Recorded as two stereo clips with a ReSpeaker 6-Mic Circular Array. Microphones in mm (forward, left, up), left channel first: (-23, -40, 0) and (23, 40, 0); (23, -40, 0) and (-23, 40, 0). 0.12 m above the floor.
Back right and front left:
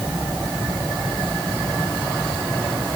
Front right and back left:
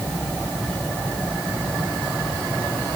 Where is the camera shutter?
I don't hear a camera shutter.